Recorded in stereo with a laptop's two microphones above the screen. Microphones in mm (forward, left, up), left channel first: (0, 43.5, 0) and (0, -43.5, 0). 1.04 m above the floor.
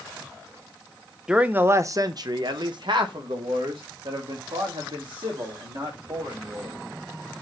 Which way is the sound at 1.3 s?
10° right (ahead or behind).